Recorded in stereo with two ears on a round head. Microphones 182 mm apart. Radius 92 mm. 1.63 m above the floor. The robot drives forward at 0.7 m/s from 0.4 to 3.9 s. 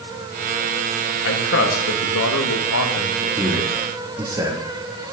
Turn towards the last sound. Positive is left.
turn(degrees=-20)  # may be behind; listen again after turning